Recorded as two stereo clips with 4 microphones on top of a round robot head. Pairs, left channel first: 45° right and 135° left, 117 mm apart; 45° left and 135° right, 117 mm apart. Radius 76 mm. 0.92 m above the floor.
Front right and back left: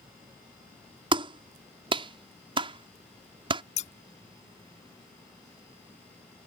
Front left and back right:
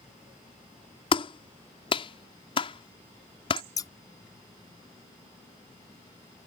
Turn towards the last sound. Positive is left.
turn(degrees=-15)